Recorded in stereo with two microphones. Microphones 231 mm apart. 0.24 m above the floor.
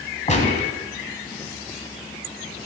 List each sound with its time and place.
0.3 s a gunshot: 30° left (ahead or behind), 1.8 m